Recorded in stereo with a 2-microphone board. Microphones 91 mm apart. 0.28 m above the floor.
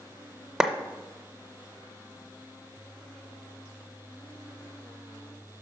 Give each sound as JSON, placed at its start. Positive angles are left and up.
{"t": 0.6, "sound": "a clap", "side_deg": -10, "distance_m": 0.7}